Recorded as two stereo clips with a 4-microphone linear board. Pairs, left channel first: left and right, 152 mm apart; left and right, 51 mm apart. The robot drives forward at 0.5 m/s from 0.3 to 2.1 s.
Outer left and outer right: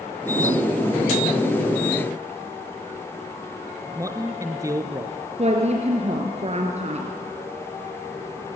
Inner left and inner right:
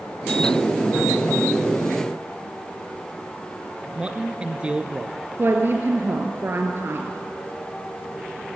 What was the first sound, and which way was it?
A man speaking, 20° right (ahead or behind).